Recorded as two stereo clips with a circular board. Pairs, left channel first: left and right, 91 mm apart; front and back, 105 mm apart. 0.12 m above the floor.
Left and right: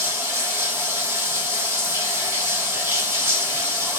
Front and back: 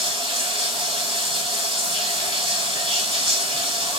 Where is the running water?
155° right, 2.5 m.